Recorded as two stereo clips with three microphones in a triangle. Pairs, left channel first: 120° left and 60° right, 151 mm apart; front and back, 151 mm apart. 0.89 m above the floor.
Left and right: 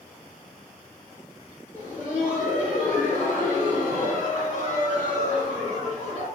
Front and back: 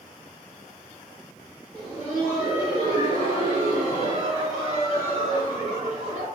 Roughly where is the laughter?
Behind right.